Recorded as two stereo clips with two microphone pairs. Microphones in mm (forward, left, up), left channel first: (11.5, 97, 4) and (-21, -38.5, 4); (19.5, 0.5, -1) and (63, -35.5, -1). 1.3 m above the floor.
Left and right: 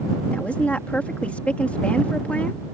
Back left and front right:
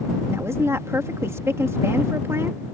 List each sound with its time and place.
0.3 s a woman speaking: 5° right